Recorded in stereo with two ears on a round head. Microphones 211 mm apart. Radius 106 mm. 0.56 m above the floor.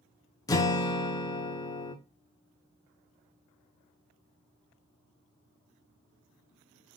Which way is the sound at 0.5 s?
15° left (ahead or behind).